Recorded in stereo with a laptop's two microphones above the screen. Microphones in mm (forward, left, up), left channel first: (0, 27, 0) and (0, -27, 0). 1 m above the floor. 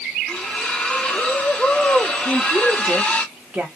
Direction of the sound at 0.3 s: 20° left (ahead or behind).